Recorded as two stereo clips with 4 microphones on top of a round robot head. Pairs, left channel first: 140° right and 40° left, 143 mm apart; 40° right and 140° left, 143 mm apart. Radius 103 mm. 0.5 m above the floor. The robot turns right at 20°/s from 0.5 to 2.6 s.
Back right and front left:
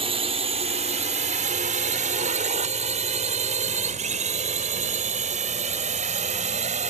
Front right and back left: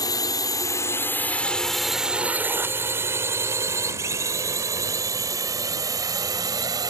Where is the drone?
15° left; by 6.9 s 75° left.